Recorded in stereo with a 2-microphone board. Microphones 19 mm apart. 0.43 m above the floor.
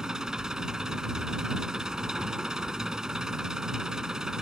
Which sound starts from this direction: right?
An engine running, at 0.0 s.